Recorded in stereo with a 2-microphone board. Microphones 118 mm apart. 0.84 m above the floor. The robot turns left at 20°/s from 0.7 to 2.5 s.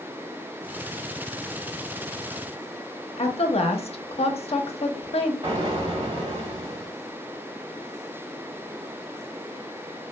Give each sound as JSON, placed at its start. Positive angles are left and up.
{"t": 3.2, "sound": "a woman speaking", "side_deg": 55, "distance_m": 0.6}
{"t": 5.4, "sound": "an explosion", "side_deg": -40, "distance_m": 1.8}